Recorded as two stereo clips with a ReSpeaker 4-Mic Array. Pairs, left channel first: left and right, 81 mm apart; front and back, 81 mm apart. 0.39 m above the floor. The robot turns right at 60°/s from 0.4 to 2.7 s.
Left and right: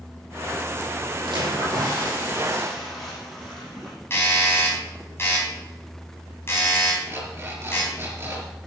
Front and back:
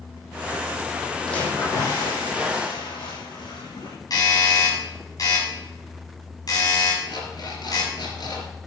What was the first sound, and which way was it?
A splash, 85° right.